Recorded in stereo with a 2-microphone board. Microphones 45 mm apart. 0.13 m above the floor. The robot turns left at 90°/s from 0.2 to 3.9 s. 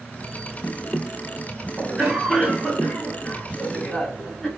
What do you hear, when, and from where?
1.8 s a cough: 145° right, 1.4 m; by 4.5 s 25° left, 1.4 m